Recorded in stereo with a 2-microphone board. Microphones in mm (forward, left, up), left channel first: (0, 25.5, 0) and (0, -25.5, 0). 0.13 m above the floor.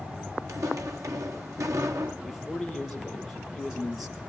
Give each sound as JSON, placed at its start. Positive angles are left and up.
{"t": 0.5, "sound": "footsteps", "side_deg": -85, "distance_m": 2.5}
{"t": 2.2, "sound": "a man speaking", "side_deg": -5, "distance_m": 3.0}